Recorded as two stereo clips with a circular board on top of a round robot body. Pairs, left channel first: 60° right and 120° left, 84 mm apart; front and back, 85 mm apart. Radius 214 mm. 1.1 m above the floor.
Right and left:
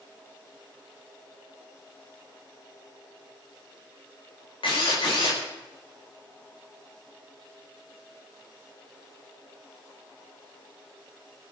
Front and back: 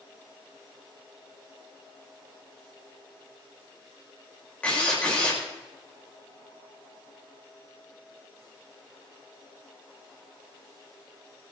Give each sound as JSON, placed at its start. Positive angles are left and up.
{"t": 4.6, "sound": "a drill", "azimuth_deg": -75, "distance_m": 5.0}